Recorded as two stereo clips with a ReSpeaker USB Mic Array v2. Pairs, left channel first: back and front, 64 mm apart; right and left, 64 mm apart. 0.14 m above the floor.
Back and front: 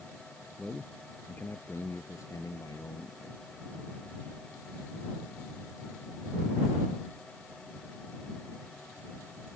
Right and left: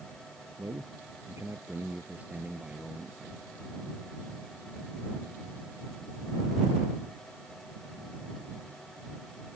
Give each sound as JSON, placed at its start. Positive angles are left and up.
{"t": 0.6, "sound": "a man speaking", "azimuth_deg": 95}